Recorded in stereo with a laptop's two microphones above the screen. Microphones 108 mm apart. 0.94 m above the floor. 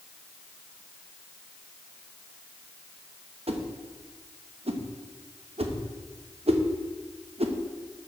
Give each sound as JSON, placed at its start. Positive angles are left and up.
{"t": 3.5, "sound": "a whoosh", "side_deg": -60, "distance_m": 0.8}